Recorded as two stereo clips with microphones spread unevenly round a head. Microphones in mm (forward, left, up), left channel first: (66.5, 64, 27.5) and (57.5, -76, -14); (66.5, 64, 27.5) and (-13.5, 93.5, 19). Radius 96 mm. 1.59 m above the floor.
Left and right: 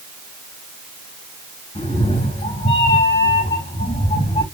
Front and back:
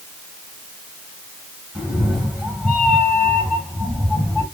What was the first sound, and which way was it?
A cat meowing, 75° left.